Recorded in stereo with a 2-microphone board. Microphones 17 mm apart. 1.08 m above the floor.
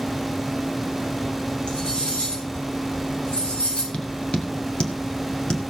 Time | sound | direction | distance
1.7 | cutlery clinking | 80° left | 6 m
3.9 | tapping | 75° left (ahead or behind) | 2 m